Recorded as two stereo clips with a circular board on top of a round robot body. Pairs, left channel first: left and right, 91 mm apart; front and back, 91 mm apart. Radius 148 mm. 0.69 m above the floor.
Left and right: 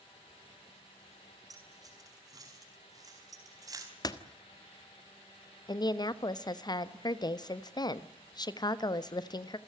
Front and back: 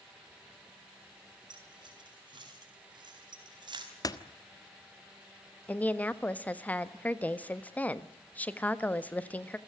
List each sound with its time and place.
1.5 s keys jangling: 140° right, 6 m
4.0 s a door slam: 45° left, 1.5 m
5.7 s a woman speaking: 70° left, 1.5 m